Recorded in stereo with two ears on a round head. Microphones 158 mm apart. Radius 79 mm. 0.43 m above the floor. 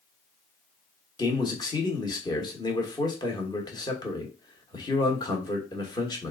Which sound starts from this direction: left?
A man speaking, at 1.2 s.